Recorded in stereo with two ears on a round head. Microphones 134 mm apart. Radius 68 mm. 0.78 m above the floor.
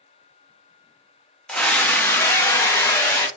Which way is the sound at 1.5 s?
5° left (ahead or behind).